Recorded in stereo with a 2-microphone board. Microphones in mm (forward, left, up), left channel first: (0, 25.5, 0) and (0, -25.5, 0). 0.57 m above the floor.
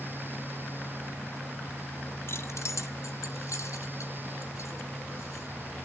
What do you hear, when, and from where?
2.3 s keys jangling: 50° left (ahead or behind), 0.6 m; by 5.5 s 70° left (ahead or behind), 3.5 m